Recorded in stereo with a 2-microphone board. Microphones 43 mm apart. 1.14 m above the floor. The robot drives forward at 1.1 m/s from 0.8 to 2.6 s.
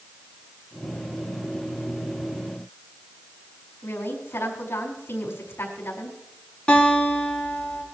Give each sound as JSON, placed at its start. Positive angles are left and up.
{"t": 3.8, "sound": "a woman speaking", "side_deg": 75, "distance_m": 5.0}
{"t": 6.7, "sound": "a guitar", "side_deg": 20, "distance_m": 6.5}